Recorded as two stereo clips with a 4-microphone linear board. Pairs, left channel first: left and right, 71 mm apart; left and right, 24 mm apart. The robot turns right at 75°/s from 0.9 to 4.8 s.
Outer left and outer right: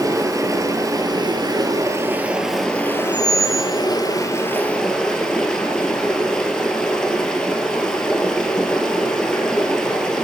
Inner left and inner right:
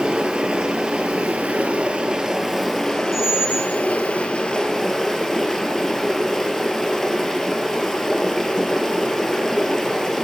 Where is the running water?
125° right, 1.0 m; by 10.2 s 170° left, 1.0 m.